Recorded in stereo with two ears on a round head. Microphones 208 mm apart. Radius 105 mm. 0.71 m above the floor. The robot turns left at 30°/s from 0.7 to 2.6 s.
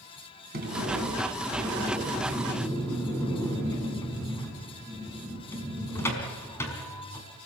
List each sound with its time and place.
0.5 s a sliding door: 135° right, 5 m; by 7.3 s 170° left, 5 m